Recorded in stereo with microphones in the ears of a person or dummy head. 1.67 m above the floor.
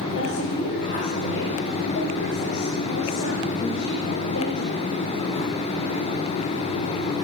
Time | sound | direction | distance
0.1 | a woman speaking | 65° left (ahead or behind) | 7.5 m